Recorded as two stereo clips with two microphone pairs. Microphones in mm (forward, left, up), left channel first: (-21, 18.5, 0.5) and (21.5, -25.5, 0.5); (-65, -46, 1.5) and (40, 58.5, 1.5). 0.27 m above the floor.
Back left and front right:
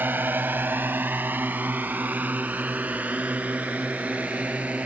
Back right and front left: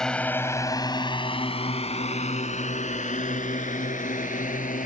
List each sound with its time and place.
0.0 s a drone: 50° right; by 4.9 s 115° right